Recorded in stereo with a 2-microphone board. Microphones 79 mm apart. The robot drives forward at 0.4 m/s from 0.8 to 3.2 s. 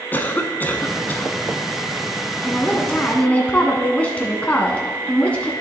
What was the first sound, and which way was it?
A cough, 25° left (ahead or behind).